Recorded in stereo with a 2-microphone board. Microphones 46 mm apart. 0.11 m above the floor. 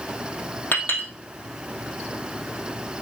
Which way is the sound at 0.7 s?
45° left (ahead or behind).